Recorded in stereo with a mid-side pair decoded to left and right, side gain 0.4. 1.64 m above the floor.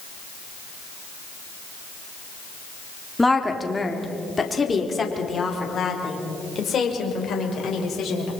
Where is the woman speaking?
15° left, 3.5 m; by 8.3 s 60° left, 6.5 m.